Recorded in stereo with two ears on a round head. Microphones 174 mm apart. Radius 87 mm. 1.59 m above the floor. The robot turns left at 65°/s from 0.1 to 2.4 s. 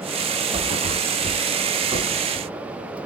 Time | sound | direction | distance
0.5 | a thud | 30° right (ahead or behind) | 1.7 m